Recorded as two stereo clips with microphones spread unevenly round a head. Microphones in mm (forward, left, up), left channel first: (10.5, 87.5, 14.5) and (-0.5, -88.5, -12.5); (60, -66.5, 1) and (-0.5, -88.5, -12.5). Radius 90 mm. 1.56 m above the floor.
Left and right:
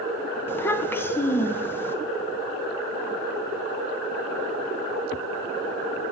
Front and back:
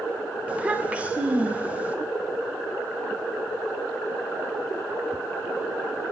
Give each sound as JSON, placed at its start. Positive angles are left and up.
{"t": 0.5, "sound": "a child speaking", "azimuth_deg": 125, "distance_m": 0.7}